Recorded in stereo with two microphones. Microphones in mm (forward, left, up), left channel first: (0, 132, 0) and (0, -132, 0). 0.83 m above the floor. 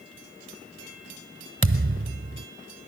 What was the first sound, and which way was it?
A thud, 50° right (ahead or behind).